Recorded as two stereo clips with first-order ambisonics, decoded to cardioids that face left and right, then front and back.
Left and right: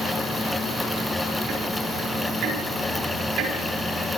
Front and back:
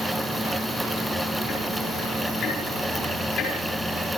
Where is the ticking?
60° right, 6 m.